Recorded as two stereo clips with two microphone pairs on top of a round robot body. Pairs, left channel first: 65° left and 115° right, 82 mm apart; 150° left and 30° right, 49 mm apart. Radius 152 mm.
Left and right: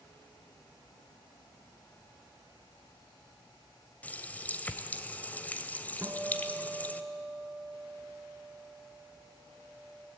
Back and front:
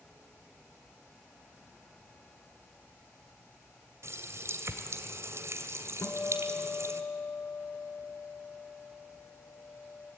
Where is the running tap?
5° right, 1.8 m.